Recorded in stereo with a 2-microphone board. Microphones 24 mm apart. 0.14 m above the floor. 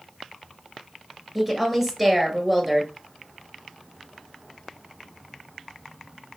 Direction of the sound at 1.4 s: 15° right (ahead or behind).